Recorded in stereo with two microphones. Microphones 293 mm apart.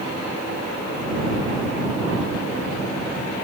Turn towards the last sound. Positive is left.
No sound to turn to.